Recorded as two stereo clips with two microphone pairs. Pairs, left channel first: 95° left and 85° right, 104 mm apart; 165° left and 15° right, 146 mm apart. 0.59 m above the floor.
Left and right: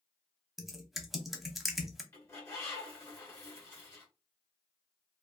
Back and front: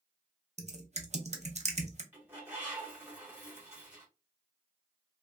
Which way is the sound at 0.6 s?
Straight ahead.